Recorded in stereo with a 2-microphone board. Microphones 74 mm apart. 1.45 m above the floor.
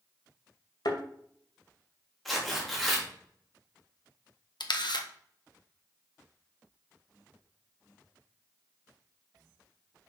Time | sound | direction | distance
0.8 | a thud | 65° left (ahead or behind) | 2 m
2.2 | tearing paper | centre (ahead or behind) | 3 m
4.6 | a camera shutter | 75° left (ahead or behind) | 1.2 m